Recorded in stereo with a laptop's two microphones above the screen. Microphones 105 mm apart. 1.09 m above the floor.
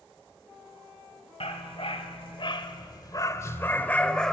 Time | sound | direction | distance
1.4 | a dog barking | 70° left (ahead or behind) | 1.8 m